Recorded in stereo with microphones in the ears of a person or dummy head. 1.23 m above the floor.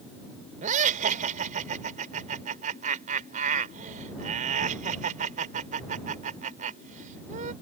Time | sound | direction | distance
0.6 | laughter | 40° right (ahead or behind) | ?